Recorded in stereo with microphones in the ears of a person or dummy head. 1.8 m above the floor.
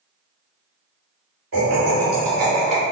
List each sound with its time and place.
1.5 s laughter: 60° right (ahead or behind), 1.6 m; by 2.8 s 35° right (ahead or behind), 1.5 m